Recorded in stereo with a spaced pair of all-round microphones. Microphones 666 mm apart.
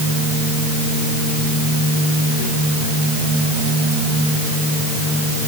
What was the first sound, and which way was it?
Only background noise.